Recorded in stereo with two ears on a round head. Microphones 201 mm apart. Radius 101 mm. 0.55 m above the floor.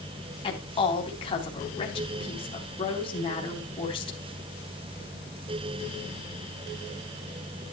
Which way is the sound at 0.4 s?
25° left (ahead or behind).